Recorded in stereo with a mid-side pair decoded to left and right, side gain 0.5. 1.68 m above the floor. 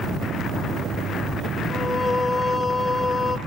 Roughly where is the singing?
Ahead left.